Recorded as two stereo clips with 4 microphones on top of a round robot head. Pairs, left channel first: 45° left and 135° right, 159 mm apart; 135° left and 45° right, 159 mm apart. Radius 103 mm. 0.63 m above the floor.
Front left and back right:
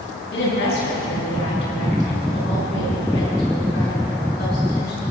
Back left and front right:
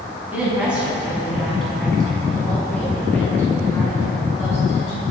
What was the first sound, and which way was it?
A woman speaking, 35° left.